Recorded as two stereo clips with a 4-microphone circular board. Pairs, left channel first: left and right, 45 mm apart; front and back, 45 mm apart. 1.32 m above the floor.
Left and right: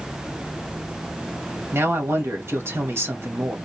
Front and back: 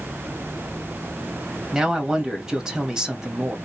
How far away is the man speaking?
About 1.7 m.